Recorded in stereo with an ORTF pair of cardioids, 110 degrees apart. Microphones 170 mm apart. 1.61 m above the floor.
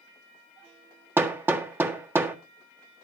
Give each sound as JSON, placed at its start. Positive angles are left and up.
{"t": 1.2, "sound": "hammering", "azimuth_deg": -15, "distance_m": 1.6}